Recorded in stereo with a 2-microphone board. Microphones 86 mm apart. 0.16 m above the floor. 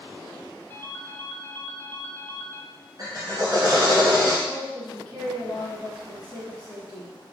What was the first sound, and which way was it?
A ringtone, 25° left (ahead or behind).